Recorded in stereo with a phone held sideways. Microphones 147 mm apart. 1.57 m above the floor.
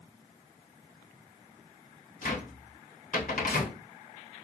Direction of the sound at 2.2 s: 65° left (ahead or behind).